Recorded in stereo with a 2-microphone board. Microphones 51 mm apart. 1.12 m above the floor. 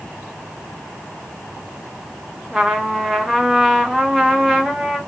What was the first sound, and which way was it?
A trumpet, 5° right (ahead or behind).